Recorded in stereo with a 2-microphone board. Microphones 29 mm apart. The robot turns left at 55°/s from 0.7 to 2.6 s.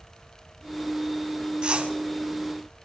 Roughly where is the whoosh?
Right.